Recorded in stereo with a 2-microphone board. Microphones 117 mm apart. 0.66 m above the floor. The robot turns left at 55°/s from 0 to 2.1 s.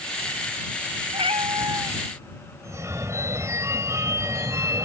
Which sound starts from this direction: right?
A phone ringing, at 2.6 s.